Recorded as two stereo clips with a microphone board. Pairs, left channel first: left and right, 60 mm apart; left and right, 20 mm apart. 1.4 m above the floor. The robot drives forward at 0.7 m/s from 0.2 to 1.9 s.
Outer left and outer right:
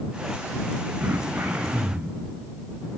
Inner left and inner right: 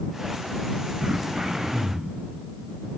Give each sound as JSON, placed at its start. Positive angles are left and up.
{"t": 1.0, "sound": "throat clearing", "side_deg": -25, "distance_m": 1.8}